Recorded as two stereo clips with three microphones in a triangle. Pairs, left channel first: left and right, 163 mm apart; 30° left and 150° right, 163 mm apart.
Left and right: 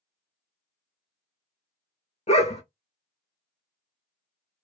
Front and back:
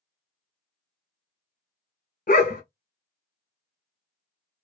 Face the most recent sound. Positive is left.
turn(degrees=45)